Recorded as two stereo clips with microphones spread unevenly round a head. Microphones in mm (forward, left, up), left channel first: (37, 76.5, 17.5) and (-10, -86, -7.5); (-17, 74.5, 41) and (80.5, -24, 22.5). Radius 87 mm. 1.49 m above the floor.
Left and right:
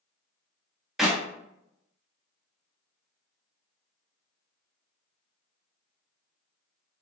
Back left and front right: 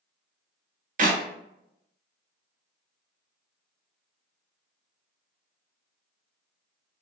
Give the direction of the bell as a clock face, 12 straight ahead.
I don't hear a bell.